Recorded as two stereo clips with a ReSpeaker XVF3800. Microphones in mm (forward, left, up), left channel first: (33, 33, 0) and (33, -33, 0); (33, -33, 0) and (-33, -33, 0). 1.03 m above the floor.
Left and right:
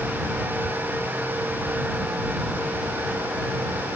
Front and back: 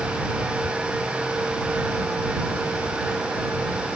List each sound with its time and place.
Only background noise.